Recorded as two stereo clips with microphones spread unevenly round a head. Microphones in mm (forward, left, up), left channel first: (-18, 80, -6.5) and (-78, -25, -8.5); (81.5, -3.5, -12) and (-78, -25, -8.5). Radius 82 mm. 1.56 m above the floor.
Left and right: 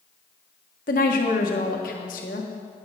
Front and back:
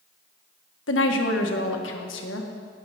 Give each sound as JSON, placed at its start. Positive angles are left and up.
{"t": 0.9, "sound": "a woman speaking", "azimuth_deg": 25, "distance_m": 1.5}